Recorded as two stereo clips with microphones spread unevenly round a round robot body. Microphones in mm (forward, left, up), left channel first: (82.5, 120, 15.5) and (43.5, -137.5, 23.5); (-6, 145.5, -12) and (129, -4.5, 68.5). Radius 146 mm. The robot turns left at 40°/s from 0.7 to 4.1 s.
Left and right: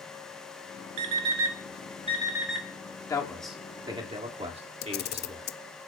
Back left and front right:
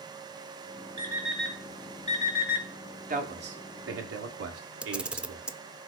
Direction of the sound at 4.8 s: 30° left.